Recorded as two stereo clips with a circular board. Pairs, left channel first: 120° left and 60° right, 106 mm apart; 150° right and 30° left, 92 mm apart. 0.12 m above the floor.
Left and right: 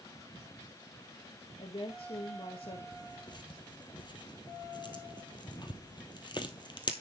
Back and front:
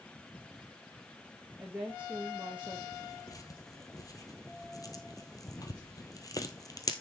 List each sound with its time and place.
1.6 s a woman speaking: 105° left, 1.9 m
2.9 s tearing paper: 165° left, 1.4 m